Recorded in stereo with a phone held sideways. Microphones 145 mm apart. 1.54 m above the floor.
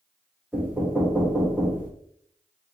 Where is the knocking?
10° right (ahead or behind), 1.2 m.